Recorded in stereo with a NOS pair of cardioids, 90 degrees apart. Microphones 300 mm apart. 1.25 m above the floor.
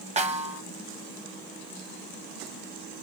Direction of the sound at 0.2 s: 25° right.